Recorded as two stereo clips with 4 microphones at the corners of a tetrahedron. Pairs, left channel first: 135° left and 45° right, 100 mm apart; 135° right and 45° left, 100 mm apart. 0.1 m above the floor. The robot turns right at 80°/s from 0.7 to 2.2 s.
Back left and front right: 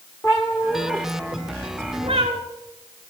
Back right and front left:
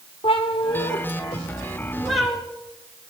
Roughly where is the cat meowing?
Behind.